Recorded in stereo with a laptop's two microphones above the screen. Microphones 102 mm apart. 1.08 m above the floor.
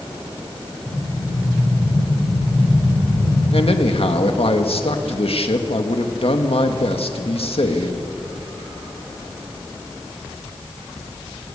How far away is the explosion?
About 4 m.